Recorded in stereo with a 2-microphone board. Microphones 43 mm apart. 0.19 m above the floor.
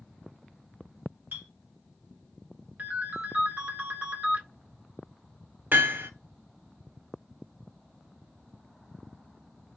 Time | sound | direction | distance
1.3 | a clink | 50° right (ahead or behind) | 1.5 m
2.8 | a ringtone | 40° right (ahead or behind) | 1.0 m
5.7 | hammering | 55° right (ahead or behind) | 1.1 m